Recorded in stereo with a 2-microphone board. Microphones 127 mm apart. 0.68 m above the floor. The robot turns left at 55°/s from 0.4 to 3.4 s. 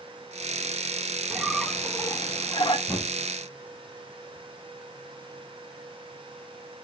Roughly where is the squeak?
Behind.